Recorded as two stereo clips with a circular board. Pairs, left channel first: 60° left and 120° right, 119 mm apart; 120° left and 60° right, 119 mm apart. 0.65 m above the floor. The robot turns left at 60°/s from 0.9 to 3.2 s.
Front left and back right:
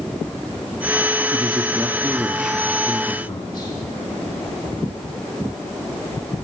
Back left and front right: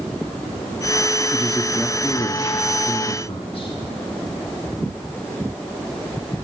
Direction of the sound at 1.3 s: 145° right.